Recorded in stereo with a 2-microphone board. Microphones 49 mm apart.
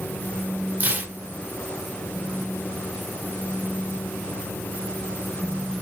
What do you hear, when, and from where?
0.8 s tearing paper: 30° right (ahead or behind), 0.8 m